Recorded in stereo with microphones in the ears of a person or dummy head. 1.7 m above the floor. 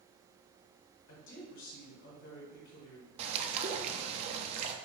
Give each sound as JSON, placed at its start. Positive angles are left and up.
{"t": 1.1, "sound": "a woman speaking", "side_deg": 75, "distance_m": 1.5}
{"t": 3.2, "sound": "a bird", "side_deg": -35, "distance_m": 0.5}